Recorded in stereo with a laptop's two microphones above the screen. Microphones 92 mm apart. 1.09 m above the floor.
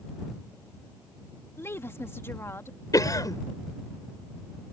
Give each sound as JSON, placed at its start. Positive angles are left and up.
{"t": 1.6, "sound": "a woman speaking", "side_deg": 30}
{"t": 2.9, "sound": "a cough", "side_deg": 40}